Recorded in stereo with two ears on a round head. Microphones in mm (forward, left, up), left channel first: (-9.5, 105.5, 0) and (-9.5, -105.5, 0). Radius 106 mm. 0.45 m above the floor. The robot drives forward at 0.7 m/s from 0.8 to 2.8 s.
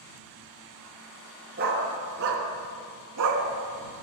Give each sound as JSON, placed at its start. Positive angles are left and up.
{"t": 1.6, "sound": "a dog barking", "side_deg": -40, "distance_m": 1.7}